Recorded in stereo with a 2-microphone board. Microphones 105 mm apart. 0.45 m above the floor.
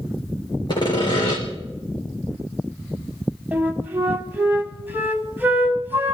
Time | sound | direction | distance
0.7 | sawing | 45° left (ahead or behind) | 5 m
3.5 | a flute | 15° right (ahead or behind) | 1.8 m